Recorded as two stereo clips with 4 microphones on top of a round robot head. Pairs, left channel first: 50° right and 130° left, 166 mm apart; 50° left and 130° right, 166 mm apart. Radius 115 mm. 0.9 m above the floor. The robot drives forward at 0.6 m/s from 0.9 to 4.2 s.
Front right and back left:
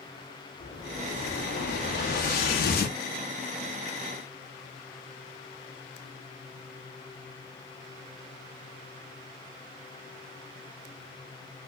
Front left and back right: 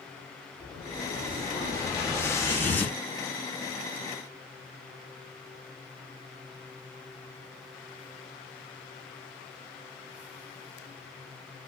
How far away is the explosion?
About 2.5 m.